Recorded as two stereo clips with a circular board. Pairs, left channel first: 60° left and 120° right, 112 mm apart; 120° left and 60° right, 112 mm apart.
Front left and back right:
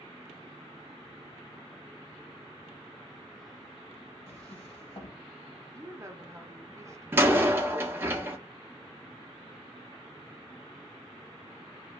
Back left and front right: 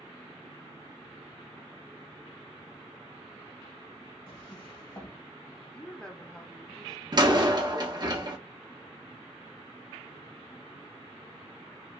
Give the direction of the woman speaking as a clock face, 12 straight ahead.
5 o'clock.